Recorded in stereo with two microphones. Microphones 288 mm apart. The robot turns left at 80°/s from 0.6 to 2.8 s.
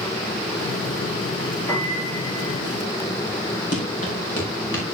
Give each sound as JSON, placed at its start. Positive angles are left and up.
{"t": 1.7, "sound": "a piano", "azimuth_deg": 170, "distance_m": 5.0}
{"t": 3.7, "sound": "running footsteps", "side_deg": 50, "distance_m": 6.5}